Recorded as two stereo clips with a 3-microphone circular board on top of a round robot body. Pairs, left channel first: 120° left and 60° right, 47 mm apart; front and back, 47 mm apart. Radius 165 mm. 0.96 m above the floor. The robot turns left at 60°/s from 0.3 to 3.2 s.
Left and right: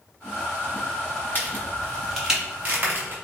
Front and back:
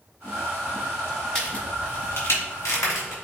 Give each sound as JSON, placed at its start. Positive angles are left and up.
{"t": 1.4, "sound": "a crack", "azimuth_deg": 75, "distance_m": 3.5}